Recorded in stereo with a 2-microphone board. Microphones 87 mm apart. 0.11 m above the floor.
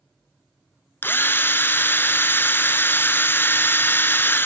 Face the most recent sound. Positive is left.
turn(degrees=25)  # may be behind; listen again after turning